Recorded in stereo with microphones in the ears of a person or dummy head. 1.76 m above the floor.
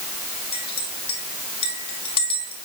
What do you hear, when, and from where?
0.5 s a clink: 30° left (ahead or behind), 3.5 m